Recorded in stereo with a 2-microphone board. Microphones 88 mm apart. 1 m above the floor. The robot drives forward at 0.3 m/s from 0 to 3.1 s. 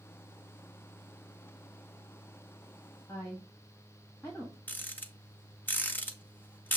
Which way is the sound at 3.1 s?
20° left (ahead or behind).